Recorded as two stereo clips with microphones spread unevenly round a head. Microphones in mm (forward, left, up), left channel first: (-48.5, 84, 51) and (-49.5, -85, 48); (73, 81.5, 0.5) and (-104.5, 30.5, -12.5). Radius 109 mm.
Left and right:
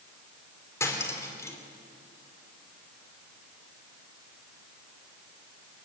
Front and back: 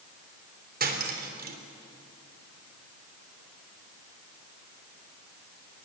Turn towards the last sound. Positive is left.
turn(degrees=160)